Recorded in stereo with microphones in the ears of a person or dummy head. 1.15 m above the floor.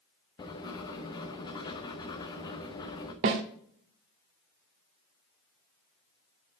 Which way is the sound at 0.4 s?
25° left (ahead or behind).